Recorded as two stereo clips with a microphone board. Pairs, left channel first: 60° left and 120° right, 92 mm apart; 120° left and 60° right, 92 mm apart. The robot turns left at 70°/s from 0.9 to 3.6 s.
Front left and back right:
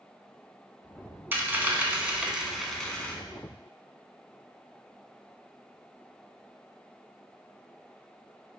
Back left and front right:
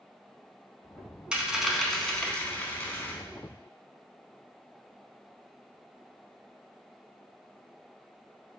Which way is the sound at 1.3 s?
120° right.